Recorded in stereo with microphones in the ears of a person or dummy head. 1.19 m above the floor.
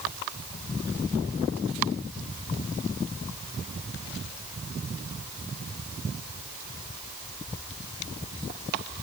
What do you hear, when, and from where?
Only background noise.